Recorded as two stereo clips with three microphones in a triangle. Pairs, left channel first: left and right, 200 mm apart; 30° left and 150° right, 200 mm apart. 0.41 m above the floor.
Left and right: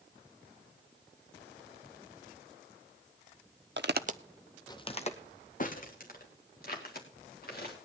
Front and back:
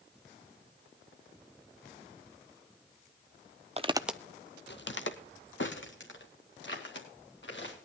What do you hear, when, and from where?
3.8 s footsteps: 95° right, 0.7 m; by 7.7 s 50° left, 4 m